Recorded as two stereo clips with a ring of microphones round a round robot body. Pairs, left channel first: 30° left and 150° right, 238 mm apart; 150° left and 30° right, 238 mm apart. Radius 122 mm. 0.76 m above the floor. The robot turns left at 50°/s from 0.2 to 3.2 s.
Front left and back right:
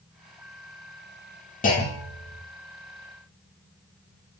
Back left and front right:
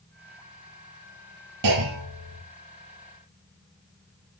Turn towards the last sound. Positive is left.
turn(degrees=-105)